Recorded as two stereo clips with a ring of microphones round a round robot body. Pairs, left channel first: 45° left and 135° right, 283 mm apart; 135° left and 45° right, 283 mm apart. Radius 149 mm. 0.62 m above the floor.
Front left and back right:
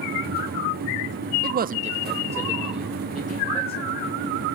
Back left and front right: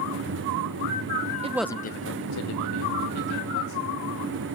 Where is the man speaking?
100° right, 0.7 m; by 4.0 s 130° left, 3.5 m.